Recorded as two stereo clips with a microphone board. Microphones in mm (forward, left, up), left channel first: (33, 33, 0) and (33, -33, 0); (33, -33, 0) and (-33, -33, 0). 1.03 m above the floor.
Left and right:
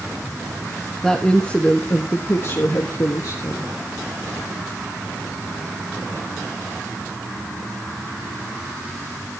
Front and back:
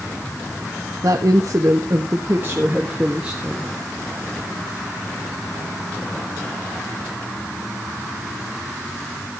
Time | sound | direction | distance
1.0 | a woman speaking | 175° left | 1.4 m